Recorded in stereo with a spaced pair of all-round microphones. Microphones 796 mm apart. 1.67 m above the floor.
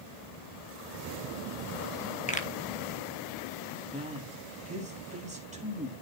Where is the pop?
10° left (ahead or behind), 1.5 m.